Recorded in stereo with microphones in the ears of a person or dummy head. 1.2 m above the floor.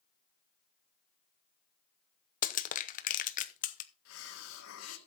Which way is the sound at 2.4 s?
35° left (ahead or behind).